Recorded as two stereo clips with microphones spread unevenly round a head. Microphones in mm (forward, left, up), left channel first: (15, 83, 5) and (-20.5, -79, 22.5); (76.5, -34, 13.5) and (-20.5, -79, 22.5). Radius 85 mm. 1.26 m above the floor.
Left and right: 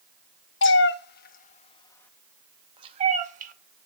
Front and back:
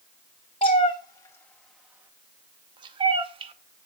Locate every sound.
0.6 s a cat meowing: 80° left, 1.0 m; by 3.9 s 130° right, 1.3 m